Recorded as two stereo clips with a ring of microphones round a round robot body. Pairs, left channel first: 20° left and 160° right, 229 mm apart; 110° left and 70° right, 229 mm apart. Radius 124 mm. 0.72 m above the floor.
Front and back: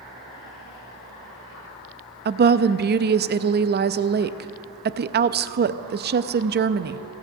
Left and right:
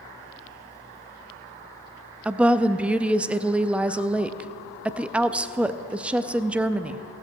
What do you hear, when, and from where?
2.2 s a woman speaking: 150° right, 0.5 m